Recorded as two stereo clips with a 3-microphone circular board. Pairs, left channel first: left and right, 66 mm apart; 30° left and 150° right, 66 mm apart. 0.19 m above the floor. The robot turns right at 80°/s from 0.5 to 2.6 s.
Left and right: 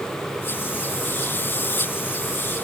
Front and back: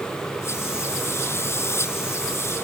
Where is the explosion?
I don't hear an explosion.